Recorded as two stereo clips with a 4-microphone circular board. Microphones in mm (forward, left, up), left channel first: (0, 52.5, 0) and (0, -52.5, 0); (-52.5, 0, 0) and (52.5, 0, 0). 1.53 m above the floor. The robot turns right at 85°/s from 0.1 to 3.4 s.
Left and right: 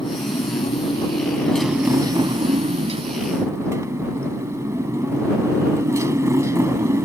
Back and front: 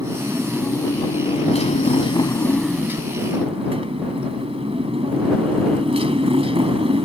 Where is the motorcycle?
50° left; by 7.1 s 30° right.